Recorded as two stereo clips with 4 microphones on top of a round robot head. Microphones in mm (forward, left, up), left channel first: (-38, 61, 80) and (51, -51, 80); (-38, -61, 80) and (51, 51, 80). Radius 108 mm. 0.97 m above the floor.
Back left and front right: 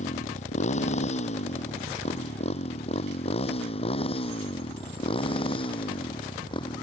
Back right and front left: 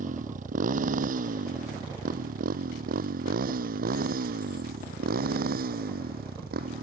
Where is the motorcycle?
90° left; by 6.8 s 70° left.